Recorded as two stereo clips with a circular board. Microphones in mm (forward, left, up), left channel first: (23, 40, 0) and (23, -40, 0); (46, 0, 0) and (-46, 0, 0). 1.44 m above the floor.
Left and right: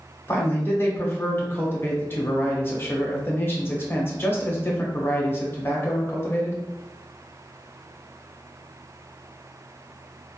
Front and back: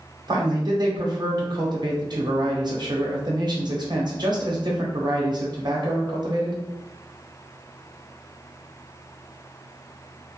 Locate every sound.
0.3 s a man speaking: 150° left, 0.8 m